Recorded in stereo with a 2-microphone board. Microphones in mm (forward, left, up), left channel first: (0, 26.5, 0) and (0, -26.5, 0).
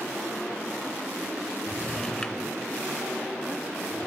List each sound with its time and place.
1.7 s a drawer: 15° left (ahead or behind), 1.7 m